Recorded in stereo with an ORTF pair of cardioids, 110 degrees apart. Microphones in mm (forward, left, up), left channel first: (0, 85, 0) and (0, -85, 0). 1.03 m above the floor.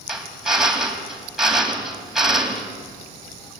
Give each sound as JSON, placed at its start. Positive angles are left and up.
{"t": 0.1, "sound": "a drill", "azimuth_deg": -5, "distance_m": 3.5}